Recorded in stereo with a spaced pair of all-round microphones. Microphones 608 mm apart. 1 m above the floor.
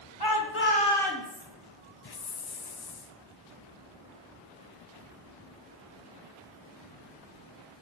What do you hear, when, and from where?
0.2 s a shout: 40° left (ahead or behind), 1.2 m; by 1.4 s 5° right (ahead or behind), 1.9 m
2.0 s a hiss: 40° left (ahead or behind), 0.5 m